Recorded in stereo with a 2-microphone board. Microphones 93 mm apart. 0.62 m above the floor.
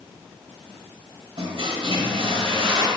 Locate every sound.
1.4 s a toilet flushing: 65° right (ahead or behind), 1.4 m